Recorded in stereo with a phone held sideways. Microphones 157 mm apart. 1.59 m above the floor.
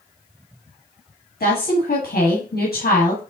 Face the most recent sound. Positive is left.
turn(degrees=80)